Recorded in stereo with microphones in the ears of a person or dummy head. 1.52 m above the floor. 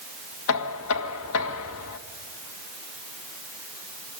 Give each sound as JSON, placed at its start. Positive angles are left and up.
{"t": 0.5, "sound": "knocking", "side_deg": 75, "distance_m": 1.5}